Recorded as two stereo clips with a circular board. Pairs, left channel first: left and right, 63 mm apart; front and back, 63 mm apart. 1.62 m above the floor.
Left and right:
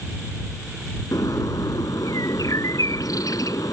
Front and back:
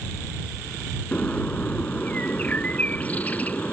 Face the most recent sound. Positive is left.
turn(degrees=65)